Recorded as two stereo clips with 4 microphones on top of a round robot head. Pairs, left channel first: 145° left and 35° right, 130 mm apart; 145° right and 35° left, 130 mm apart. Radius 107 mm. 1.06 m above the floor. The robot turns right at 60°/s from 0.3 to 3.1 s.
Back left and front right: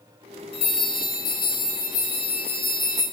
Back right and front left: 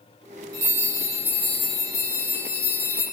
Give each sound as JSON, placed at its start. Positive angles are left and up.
{"t": 0.5, "sound": "a bell", "azimuth_deg": 95, "distance_m": 0.6}